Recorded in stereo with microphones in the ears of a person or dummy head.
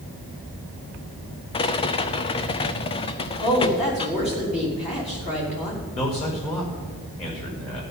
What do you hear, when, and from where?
1.5 s a rattle: 25° left (ahead or behind), 0.7 m
3.4 s a woman speaking: 30° left (ahead or behind), 4 m
5.9 s a man speaking: 35° left (ahead or behind), 5.5 m